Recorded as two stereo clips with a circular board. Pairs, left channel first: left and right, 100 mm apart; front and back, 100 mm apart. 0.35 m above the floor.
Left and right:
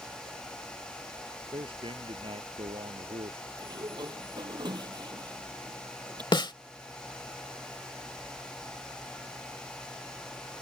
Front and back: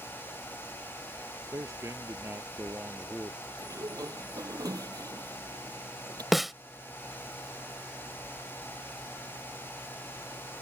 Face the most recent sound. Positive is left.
turn(degrees=90)